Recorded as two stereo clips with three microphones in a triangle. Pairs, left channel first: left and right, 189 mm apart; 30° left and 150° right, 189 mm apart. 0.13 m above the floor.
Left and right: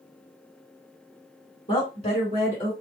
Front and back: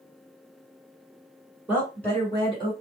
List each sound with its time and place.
1.7 s a woman speaking: 130° left, 2.0 m; by 2.7 s 70° left, 2 m